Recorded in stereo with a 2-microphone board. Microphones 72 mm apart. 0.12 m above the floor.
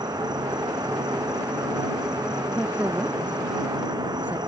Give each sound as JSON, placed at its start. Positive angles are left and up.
{"t": 0.0, "sound": "an insect", "side_deg": -80}
{"t": 2.5, "sound": "a woman speaking", "side_deg": -20}